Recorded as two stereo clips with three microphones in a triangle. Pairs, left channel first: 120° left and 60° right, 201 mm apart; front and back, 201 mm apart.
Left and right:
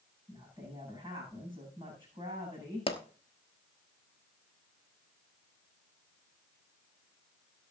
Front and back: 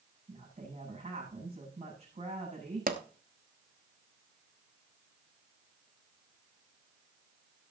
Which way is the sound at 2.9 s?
170° left.